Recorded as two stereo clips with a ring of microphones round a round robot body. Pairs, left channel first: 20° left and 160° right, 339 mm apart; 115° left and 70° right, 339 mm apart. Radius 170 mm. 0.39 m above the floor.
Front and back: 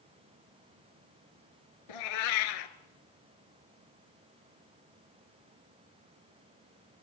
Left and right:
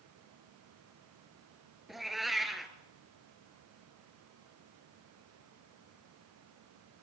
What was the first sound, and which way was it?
A cat meowing, 20° left.